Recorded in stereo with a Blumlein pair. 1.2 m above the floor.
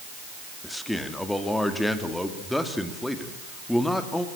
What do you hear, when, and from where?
0.6 s a man speaking: 5° left, 2.5 m